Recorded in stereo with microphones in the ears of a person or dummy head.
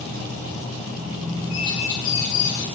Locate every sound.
1.5 s a bird: 80° left, 4.5 m